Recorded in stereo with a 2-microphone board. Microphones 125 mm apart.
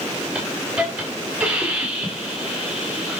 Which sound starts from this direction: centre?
A hiss, at 0.3 s.